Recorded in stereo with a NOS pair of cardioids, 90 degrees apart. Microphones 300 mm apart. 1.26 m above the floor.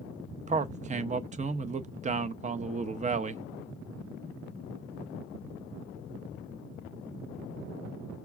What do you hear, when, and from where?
0.5 s a man speaking: 25° right, 0.6 m